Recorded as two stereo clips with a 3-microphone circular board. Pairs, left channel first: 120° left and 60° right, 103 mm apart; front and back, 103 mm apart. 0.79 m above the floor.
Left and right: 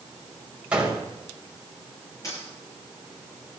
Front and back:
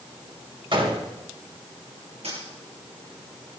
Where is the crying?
No crying in this recording.